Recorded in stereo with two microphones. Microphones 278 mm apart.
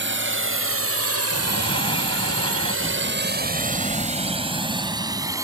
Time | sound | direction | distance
0.0 | a drone | 45° right (ahead or behind) | ?
1.3 | breathing | 20° left (ahead or behind) | ?